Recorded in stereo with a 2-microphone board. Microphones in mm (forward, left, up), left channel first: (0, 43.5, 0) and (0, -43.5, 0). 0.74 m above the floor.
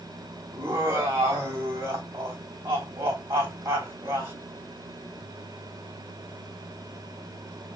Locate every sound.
0.5 s laughter: 35° right (ahead or behind), 3.5 m